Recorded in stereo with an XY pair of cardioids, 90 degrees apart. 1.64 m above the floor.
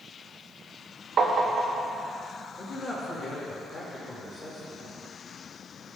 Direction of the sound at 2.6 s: 45° left.